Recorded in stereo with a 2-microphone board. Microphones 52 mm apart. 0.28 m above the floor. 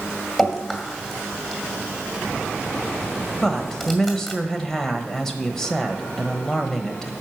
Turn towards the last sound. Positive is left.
turn(degrees=10)  # may be behind; listen again after turning